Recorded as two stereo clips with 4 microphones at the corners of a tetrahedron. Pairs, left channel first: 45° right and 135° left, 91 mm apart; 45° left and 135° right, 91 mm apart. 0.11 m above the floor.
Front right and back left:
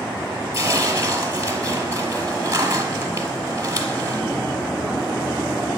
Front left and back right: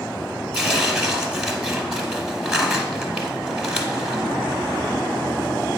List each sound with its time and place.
0.5 s tearing paper: 150° left, 0.9 m